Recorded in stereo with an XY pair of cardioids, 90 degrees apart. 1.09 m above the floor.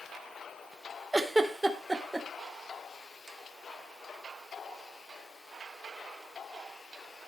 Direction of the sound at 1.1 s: 15° right.